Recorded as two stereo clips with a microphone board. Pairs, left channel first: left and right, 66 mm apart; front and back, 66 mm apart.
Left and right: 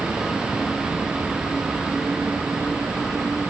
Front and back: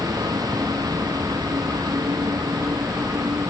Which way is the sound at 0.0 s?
170° right.